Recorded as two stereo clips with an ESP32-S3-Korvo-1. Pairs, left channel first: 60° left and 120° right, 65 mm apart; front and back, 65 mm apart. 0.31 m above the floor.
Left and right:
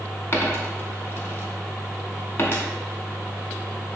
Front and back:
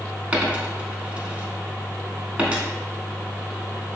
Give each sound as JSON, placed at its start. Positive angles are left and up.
{"t": 0.3, "sound": "a dropped coin", "azimuth_deg": 110, "distance_m": 0.7}